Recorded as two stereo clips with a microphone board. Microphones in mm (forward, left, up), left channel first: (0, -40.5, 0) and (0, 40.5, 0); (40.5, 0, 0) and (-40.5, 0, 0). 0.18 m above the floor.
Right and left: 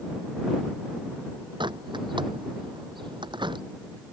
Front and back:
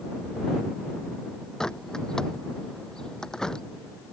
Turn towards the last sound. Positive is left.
turn(degrees=80)